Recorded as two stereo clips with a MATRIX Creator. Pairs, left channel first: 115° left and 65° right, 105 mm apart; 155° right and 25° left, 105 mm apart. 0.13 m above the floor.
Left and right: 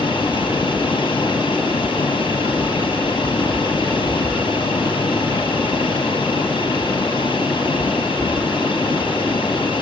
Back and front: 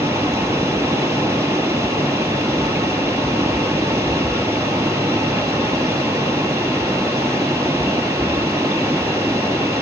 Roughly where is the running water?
Left.